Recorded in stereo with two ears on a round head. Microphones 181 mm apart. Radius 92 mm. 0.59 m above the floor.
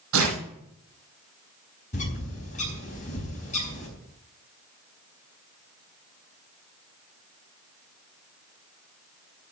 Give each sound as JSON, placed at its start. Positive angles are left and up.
{"t": 0.1, "sound": "tearing paper", "side_deg": -80, "distance_m": 5.0}
{"t": 1.9, "sound": "a bird", "side_deg": 40, "distance_m": 4.5}